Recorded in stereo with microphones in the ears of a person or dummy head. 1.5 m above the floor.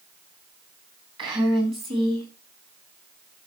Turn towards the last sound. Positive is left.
turn(degrees=-25)  # may be behind; listen again after turning